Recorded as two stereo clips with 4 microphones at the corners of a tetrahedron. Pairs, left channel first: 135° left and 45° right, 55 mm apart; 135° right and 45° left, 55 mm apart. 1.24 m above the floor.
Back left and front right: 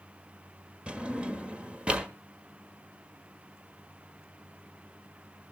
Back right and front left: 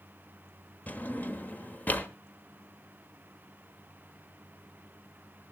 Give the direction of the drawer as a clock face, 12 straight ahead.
3 o'clock.